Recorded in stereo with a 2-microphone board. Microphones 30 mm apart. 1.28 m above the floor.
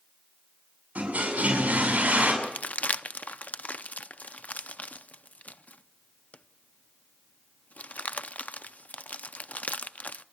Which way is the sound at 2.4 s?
55° left (ahead or behind).